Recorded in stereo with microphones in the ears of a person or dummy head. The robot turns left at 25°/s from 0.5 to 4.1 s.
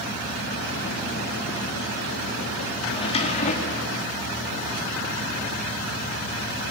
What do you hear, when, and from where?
2.9 s a drawer: 25° left (ahead or behind), 2 m; by 4.0 s 50° left (ahead or behind), 2 m